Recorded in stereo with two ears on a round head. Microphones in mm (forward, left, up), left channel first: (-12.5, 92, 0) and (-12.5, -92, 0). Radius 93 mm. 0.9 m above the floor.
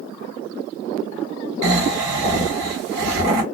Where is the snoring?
60° right (ahead or behind), 1.2 m.